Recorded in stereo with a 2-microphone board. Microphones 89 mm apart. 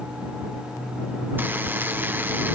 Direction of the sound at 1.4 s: 20° right (ahead or behind).